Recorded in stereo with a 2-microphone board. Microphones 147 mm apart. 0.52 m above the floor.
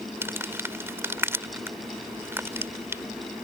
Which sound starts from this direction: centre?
Crumpling, at 0.2 s.